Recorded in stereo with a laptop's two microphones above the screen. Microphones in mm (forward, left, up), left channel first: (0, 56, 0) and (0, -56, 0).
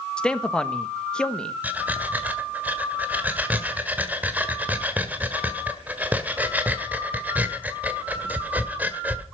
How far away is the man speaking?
About 1.6 m.